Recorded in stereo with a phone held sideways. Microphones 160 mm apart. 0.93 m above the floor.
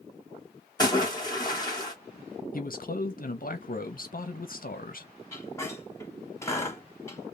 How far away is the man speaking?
About 0.7 m.